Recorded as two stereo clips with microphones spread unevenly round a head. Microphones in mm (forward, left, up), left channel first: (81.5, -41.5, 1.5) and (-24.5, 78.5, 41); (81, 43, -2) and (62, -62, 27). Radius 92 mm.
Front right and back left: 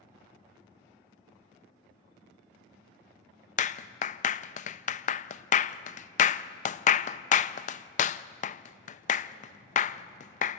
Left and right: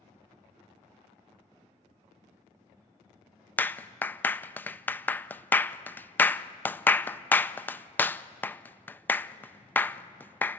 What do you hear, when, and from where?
3.6 s a clap: straight ahead, 0.5 m